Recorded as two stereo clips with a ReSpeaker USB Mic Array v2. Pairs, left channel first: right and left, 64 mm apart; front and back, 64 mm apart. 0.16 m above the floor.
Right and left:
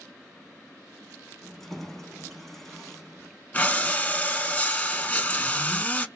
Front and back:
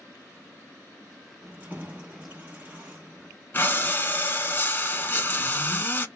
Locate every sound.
1.4 s keys jangling: 170° right, 0.8 m
3.5 s breathing: 35° right, 0.5 m